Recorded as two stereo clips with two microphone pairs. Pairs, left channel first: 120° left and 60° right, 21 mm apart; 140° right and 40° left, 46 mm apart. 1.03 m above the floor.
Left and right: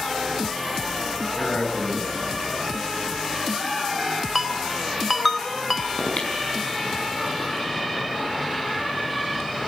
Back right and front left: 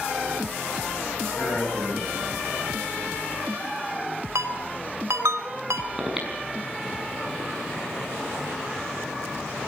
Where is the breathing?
120° left, 5.5 m.